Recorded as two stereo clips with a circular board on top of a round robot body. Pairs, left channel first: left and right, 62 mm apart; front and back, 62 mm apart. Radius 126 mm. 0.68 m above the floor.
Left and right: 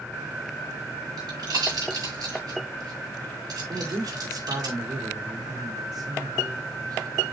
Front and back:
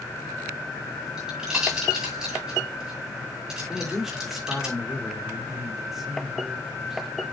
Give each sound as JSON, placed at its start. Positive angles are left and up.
{"t": 1.2, "sound": "a pop", "azimuth_deg": -95, "distance_m": 8.5}
{"t": 3.7, "sound": "a man speaking", "azimuth_deg": -95, "distance_m": 3.0}